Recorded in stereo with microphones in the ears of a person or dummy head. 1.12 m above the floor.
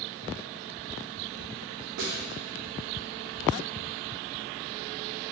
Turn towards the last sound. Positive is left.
turn(degrees=-75)  # may be behind; listen again after turning